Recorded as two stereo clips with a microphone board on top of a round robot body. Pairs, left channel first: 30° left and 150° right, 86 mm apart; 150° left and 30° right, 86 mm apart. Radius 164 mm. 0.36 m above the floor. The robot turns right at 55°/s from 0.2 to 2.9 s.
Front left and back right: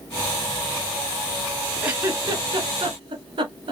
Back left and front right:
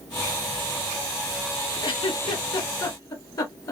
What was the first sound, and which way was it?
A giggle, 135° left.